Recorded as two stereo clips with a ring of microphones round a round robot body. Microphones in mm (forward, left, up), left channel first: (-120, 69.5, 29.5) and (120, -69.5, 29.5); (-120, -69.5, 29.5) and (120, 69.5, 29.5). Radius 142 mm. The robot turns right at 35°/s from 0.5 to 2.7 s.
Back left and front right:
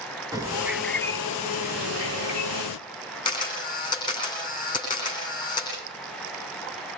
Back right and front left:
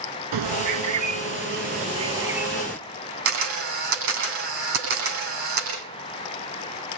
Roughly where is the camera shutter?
Left.